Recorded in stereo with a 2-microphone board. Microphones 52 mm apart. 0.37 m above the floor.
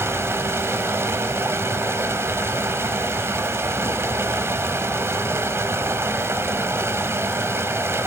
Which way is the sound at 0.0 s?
55° right (ahead or behind).